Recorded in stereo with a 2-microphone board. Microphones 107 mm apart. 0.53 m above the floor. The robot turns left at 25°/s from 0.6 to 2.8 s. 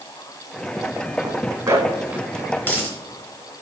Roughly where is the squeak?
No squeak in this recording.